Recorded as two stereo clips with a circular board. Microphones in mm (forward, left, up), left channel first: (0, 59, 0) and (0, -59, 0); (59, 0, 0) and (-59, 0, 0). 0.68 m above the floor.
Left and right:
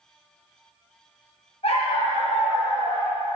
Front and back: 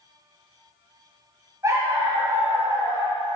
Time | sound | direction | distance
1.6 | a dog barking | 120° left | 2.0 m